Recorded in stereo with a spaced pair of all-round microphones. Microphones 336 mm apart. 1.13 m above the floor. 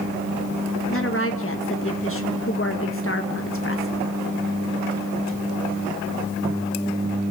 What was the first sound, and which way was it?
A woman speaking, 40° left (ahead or behind).